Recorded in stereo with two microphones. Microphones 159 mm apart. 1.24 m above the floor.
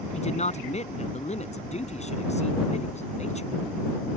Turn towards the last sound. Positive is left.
turn(degrees=45)  # may be behind; listen again after turning